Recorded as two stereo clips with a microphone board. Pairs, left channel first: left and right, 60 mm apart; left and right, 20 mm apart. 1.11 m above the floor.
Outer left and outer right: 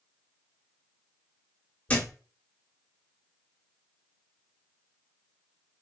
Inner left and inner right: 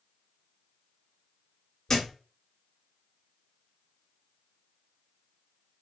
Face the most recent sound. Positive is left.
turn(degrees=25)  # may be behind; listen again after turning